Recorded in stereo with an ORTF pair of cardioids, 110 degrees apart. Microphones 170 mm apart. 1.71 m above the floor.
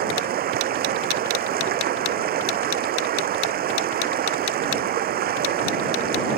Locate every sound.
0.0 s running water: 60° right